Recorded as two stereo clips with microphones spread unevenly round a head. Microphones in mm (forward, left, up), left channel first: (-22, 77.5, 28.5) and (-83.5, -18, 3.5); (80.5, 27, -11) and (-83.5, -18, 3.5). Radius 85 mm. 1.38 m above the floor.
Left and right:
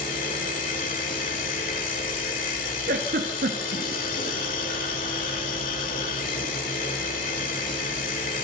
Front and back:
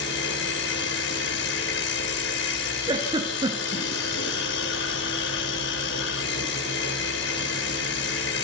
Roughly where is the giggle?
Right.